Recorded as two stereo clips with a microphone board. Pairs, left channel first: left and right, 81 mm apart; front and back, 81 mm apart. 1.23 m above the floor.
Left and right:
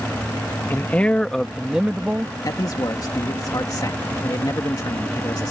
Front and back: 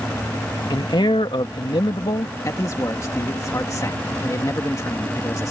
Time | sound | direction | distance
0.7 | a man speaking | 25° left | ?
2.5 | a man speaking | 50° left | ?